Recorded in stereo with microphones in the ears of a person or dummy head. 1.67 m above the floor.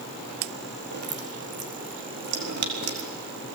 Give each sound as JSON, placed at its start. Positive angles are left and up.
{"t": 0.9, "sound": "dripping", "side_deg": -60, "distance_m": 4.5}